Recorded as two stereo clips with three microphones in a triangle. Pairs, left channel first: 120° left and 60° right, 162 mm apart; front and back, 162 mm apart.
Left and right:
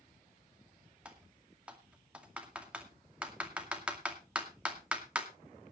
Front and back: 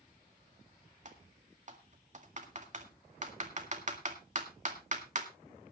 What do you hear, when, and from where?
1.1 s typing on a keyboard: 140° right, 2.0 m